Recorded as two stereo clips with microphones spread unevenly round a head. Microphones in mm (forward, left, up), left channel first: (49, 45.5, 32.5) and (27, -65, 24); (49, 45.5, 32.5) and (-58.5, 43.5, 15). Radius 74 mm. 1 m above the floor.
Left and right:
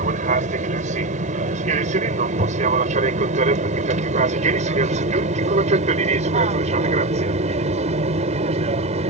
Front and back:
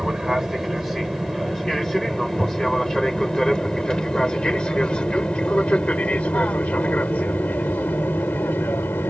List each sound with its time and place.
0.0 s an aircraft: 90° right; by 9.1 s 75° right